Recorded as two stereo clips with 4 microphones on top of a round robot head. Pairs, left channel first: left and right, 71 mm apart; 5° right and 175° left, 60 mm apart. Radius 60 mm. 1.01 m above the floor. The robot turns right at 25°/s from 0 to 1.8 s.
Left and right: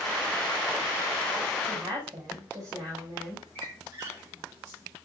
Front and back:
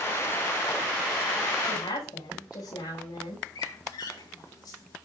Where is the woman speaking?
40° right, 6.5 m; by 3.5 s 35° right, 6.5 m.